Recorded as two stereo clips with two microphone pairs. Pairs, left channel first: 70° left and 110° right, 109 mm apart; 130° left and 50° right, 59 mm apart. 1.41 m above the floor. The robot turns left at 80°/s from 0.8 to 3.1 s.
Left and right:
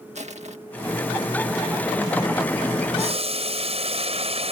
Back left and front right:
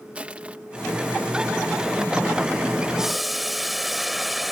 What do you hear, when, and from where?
0.1 s crushing: 120° right
3.0 s boiling: 130° right; by 4.5 s 140° right